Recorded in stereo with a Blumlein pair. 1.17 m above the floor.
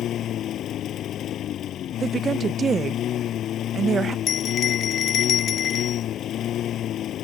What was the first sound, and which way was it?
A lawn mower, 30° left.